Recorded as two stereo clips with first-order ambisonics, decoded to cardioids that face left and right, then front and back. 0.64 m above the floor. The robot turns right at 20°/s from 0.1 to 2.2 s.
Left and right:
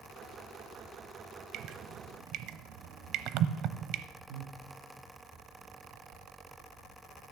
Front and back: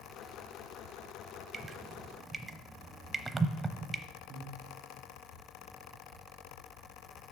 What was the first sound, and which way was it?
Dripping, 120° right.